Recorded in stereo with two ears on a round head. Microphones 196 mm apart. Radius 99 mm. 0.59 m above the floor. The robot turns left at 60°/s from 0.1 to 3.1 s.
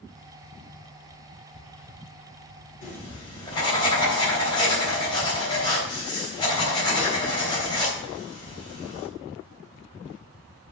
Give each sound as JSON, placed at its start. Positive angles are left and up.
{"t": 2.8, "sound": "writing", "side_deg": 40, "distance_m": 3.5}